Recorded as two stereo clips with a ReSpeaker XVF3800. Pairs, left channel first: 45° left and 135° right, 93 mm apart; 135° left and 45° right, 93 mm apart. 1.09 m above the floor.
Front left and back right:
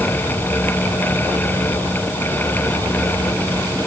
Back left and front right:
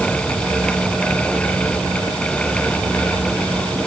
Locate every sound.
Only background noise.